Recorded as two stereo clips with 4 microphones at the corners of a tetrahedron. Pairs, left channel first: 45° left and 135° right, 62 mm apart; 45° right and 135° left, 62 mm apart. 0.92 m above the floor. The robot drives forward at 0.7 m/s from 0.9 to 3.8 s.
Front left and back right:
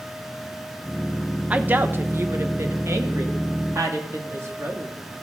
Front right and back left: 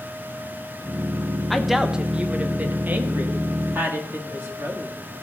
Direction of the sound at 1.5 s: 130° right.